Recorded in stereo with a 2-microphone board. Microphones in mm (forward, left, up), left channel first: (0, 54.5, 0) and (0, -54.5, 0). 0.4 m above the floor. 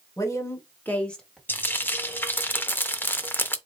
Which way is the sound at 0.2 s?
30° left (ahead or behind).